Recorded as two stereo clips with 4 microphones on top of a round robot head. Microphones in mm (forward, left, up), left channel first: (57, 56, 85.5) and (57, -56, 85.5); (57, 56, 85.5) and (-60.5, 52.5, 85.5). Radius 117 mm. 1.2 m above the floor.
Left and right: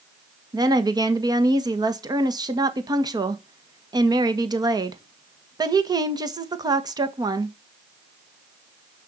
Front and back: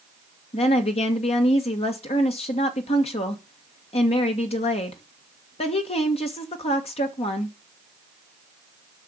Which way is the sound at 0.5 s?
35° right.